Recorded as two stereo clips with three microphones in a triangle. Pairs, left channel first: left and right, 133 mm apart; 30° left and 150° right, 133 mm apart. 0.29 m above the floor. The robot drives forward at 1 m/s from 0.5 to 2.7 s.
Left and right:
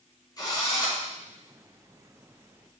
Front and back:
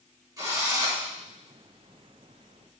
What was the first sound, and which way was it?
A drill, 150° left.